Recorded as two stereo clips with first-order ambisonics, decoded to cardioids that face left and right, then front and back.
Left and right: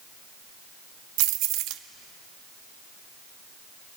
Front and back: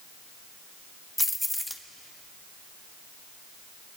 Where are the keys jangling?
85° right, 0.9 m.